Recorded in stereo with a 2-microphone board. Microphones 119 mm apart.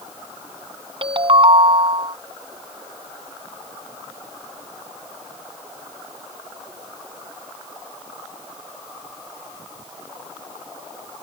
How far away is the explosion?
No explosion in this recording.